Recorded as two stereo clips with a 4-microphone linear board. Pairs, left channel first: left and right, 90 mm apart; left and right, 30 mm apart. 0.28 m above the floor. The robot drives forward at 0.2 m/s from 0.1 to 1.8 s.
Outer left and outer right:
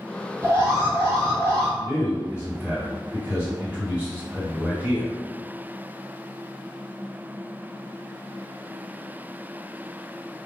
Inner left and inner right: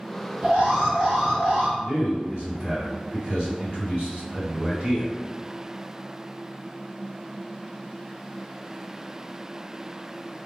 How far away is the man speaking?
About 1.9 m.